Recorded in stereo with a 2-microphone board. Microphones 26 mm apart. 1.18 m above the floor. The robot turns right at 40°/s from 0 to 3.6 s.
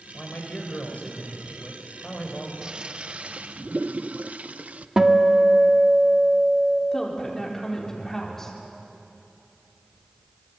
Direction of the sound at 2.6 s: 145° right.